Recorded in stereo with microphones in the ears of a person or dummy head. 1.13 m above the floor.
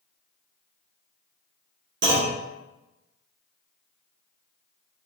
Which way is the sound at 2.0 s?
55° right (ahead or behind).